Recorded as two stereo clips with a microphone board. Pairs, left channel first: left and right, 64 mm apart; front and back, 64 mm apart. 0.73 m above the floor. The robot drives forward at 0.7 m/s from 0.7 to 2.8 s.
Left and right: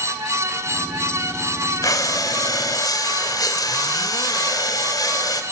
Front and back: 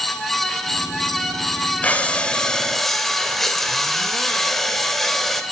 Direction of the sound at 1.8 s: 70° left.